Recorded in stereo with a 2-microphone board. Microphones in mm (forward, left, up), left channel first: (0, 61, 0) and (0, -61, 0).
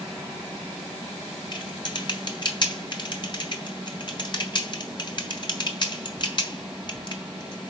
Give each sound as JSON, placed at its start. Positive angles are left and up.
{"t": 1.5, "sound": "typing on a keyboard", "side_deg": 40, "distance_m": 1.4}